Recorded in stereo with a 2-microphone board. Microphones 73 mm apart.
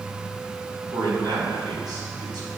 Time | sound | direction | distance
0.9 | a man speaking | 65° right (ahead or behind) | 3 m